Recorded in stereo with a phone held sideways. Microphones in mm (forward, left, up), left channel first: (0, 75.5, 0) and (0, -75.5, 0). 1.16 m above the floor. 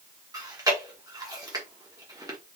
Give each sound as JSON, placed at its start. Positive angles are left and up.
{"t": 0.3, "sound": "chewing", "side_deg": -25, "distance_m": 1.0}